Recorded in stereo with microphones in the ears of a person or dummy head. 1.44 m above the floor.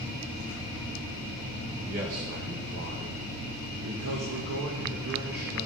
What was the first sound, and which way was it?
A man speaking, 45° right (ahead or behind).